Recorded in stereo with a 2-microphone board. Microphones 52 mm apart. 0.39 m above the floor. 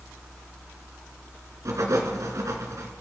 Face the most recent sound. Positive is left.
turn(degrees=-80)